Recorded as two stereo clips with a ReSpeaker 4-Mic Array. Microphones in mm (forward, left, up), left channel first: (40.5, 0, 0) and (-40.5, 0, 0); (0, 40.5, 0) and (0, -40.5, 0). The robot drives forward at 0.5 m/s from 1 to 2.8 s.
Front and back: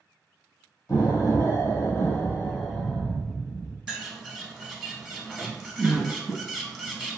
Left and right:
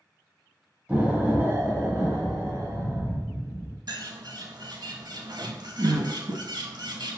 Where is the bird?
100° right, 0.5 m.